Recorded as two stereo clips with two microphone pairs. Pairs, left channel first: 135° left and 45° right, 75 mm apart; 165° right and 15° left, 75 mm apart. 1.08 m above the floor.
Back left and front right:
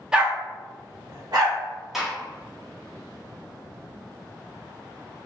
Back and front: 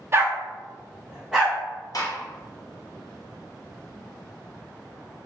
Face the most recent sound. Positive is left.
turn(degrees=-130)